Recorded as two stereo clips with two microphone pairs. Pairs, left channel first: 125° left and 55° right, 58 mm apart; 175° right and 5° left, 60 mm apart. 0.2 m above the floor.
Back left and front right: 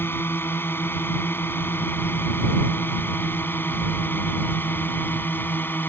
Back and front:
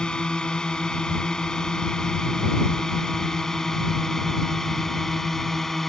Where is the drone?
115° left; by 5.9 s 105° left.